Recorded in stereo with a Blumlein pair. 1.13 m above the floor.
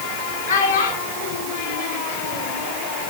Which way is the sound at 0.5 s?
70° left.